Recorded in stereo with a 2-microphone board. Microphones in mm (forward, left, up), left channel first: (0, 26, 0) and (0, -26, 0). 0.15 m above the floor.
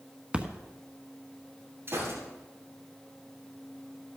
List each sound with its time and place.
0.3 s a splash: 20° right (ahead or behind), 1.1 m
1.9 s a gunshot: 40° right (ahead or behind), 8 m